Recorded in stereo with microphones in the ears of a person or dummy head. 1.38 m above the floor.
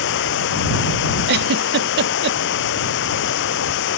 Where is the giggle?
65° right (ahead or behind).